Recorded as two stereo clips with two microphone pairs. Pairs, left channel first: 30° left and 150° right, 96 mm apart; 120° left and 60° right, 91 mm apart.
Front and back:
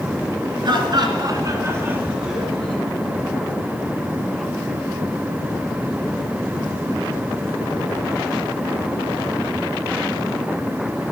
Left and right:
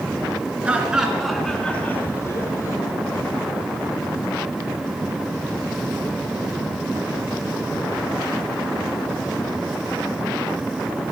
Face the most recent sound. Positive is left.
turn(degrees=105)